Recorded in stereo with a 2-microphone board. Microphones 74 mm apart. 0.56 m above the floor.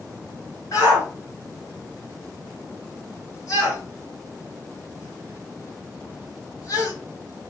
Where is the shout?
60° left (ahead or behind), 2 m.